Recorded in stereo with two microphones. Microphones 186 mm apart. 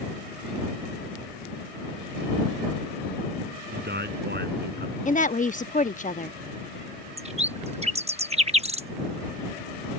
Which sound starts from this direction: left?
A woman speaking, at 5.0 s.